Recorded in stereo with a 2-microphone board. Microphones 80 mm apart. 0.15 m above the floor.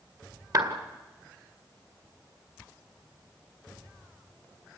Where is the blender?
No blender in this recording.